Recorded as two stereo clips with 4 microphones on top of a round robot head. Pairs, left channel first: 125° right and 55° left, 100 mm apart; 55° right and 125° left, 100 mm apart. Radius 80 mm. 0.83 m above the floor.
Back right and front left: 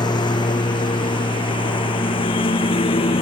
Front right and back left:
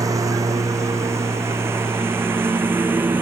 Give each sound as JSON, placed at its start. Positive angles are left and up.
{"t": 0.0, "sound": "a lawn mower", "azimuth_deg": -175}